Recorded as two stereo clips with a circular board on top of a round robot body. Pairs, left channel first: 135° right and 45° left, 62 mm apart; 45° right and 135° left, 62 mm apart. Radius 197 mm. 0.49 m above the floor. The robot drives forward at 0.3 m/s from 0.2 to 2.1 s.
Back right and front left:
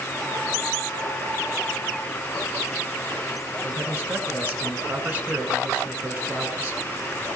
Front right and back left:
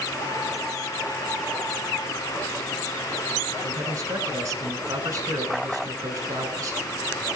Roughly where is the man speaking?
Behind left.